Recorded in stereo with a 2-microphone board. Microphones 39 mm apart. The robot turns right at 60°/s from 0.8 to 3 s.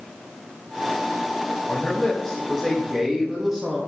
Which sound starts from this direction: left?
A man speaking, at 1.7 s.